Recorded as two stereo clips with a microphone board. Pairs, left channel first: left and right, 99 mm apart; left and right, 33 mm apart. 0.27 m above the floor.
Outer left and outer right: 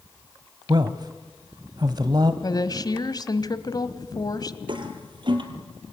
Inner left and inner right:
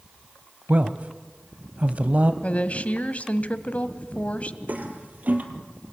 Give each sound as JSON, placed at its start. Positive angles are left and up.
{"t": 0.7, "sound": "a man speaking", "side_deg": -45, "distance_m": 1.3}
{"t": 2.4, "sound": "a woman speaking", "side_deg": 40, "distance_m": 1.4}
{"t": 4.7, "sound": "a toilet flushing", "side_deg": -50, "distance_m": 3.0}